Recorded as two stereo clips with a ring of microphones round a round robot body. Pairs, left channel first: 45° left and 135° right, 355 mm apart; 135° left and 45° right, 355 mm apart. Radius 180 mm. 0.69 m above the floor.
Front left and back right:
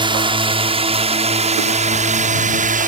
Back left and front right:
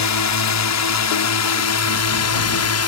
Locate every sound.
0.0 s a drone: 150° left; by 2.9 s 165° left